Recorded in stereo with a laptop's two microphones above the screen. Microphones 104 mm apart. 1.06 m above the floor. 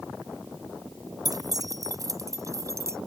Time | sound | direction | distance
1.2 | keys jangling | 40° right (ahead or behind) | ?